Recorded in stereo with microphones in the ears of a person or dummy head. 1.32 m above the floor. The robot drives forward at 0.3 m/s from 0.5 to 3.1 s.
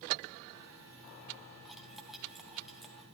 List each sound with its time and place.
1.6 s cutlery clinking: centre (ahead or behind), 1.1 m